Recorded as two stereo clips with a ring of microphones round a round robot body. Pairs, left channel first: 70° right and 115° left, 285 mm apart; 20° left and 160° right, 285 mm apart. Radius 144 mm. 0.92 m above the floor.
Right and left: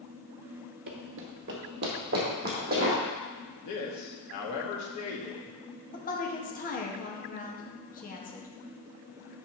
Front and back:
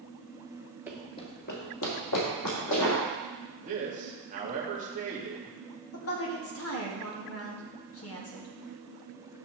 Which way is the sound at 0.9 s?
125° left.